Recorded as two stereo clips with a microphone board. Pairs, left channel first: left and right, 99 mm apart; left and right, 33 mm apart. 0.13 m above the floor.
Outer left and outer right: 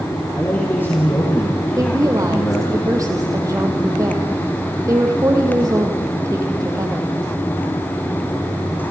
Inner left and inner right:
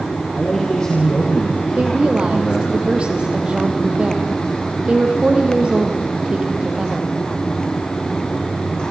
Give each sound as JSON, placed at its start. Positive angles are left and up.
{"t": 0.3, "sound": "a man speaking", "side_deg": 25, "distance_m": 4.5}
{"t": 1.8, "sound": "a woman speaking", "side_deg": -35, "distance_m": 4.0}